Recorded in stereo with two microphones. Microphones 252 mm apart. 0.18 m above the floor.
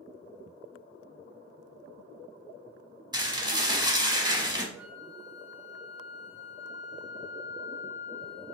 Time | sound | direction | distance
3.1 | dishes clattering | 15° right (ahead or behind) | 0.8 m
4.8 | a flute | 70° right (ahead or behind) | 1.3 m